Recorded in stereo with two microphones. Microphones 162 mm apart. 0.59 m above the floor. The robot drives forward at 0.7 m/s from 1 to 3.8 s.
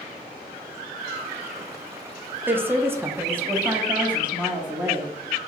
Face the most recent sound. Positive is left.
turn(degrees=-10)  # may be behind; listen again after turning